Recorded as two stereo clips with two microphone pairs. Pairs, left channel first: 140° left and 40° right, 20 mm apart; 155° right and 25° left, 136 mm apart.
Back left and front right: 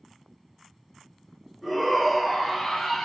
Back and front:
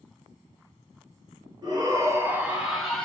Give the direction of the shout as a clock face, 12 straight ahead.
11 o'clock.